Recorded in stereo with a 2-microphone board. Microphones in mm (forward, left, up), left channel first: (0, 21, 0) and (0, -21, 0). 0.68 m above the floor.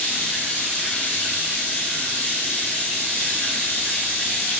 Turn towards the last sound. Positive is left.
turn(degrees=40)  # may be behind; listen again after turning